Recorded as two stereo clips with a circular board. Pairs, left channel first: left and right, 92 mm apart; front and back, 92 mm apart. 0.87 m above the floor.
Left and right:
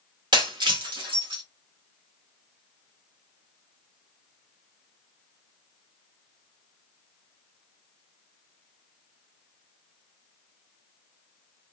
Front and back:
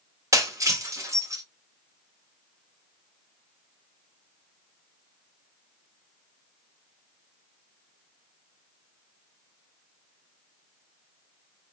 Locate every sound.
0.3 s breaking glass: 125° right, 1.7 m